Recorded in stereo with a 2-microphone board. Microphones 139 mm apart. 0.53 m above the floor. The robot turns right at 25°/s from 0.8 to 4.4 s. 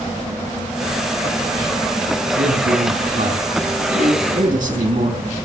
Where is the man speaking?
120° right, 4 m; by 5.2 s 70° right, 4 m.